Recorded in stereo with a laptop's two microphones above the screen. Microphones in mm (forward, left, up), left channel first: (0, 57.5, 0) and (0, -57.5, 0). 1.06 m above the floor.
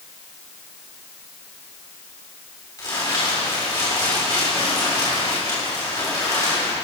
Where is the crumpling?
35° left (ahead or behind), 3 m.